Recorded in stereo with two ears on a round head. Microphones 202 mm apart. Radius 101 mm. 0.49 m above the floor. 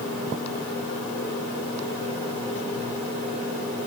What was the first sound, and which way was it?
Only background noise.